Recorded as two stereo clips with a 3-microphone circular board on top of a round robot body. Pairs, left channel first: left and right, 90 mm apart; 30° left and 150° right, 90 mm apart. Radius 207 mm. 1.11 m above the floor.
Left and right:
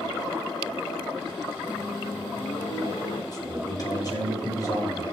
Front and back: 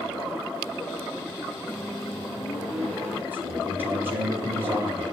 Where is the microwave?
120° left, 4 m.